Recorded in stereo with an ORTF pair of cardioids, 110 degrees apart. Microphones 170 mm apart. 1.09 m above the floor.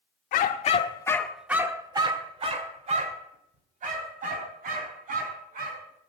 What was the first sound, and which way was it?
A dog barking, 60° left.